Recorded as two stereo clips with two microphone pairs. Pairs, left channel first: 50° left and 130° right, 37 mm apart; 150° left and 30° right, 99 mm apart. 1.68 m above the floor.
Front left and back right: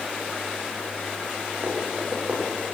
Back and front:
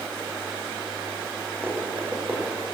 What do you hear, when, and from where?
1.6 s running footsteps: 95° right, 4 m